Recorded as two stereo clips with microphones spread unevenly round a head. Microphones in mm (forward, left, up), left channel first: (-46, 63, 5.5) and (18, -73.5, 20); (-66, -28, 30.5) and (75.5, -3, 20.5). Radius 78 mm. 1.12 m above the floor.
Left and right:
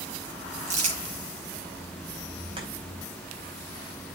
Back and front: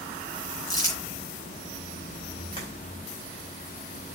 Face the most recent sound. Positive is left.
turn(degrees=-120)